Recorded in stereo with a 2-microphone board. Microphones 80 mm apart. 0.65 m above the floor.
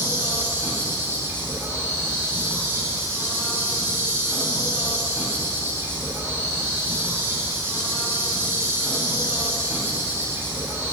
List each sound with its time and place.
0.0 s an insect: 30° right (ahead or behind), 2.5 m